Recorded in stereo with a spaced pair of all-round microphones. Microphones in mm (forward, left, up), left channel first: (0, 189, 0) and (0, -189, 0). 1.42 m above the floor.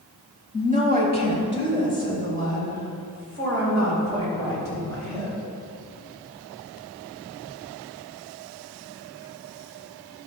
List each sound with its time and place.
0.5 s a woman speaking: 15° right (ahead or behind), 2.0 m; by 5.3 s 35° right (ahead or behind), 7.5 m